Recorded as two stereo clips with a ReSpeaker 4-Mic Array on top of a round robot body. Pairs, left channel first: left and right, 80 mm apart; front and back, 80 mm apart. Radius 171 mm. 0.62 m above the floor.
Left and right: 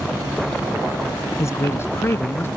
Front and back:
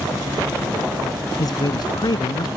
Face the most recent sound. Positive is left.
turn(degrees=25)